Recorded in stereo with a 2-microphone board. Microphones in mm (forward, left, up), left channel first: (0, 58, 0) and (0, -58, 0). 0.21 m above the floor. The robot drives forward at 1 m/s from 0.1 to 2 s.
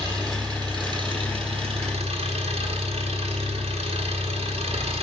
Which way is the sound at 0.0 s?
30° right (ahead or behind).